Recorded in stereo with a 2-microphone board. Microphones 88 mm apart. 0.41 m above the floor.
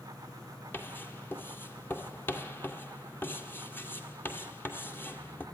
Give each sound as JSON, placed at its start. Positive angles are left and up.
{"t": 0.7, "sound": "writing", "side_deg": 25, "distance_m": 2.0}